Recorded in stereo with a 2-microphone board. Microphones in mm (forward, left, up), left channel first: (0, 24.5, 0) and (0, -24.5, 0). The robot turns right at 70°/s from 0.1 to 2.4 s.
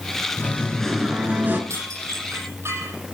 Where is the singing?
140° left, 4 m; by 1.6 s 135° right, 4 m.